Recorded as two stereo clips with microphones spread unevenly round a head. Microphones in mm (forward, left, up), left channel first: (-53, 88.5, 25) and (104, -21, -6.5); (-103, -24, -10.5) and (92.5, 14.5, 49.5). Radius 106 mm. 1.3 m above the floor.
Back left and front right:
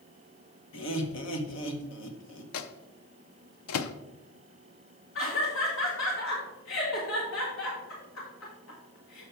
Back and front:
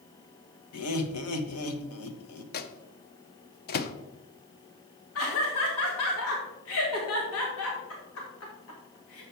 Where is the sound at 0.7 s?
Straight behind, 1.1 m.